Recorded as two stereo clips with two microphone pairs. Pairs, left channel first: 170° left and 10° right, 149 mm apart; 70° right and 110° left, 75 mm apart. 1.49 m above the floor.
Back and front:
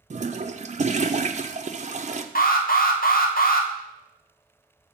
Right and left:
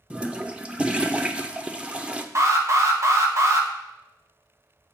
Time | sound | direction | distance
0.1 | a toilet flushing | 30° left | 0.5 m
2.4 | an alarm | 160° left | 1.1 m